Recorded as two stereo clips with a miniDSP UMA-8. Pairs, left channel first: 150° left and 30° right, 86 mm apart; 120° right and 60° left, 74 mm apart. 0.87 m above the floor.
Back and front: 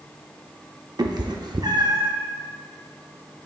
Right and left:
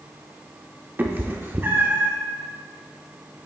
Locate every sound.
1.0 s a cat meowing: straight ahead, 0.7 m